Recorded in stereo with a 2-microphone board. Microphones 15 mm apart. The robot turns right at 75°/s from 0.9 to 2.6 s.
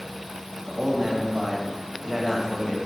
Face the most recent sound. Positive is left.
turn(degrees=35)